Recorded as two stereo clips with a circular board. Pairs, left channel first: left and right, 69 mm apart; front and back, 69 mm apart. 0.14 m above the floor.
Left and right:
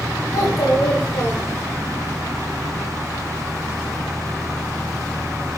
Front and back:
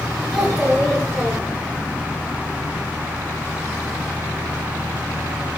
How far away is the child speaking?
About 7 m.